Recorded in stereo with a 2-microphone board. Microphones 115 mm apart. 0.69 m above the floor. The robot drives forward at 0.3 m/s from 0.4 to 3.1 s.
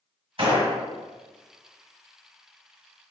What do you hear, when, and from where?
0.4 s a gunshot: 50° right (ahead or behind), 1.8 m; by 0.7 s 55° right (ahead or behind), 1.7 m